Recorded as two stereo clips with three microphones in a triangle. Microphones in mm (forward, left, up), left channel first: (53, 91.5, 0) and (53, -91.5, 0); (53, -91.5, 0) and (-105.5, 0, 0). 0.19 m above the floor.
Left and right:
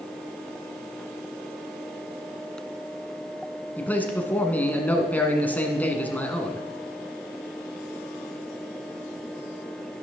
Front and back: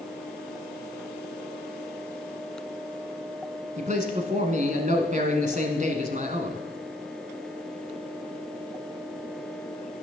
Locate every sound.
3.8 s a man speaking: 165° left, 1.4 m